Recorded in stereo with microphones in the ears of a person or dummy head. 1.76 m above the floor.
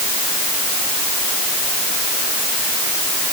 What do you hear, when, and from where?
Only background noise.